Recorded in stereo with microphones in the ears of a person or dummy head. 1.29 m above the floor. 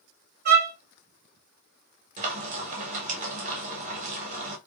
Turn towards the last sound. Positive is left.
turn(degrees=-40)  # may be behind; listen again after turning